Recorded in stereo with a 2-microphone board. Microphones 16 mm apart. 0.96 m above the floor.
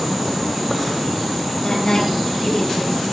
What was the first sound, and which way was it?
A woman speaking, 50° left (ahead or behind).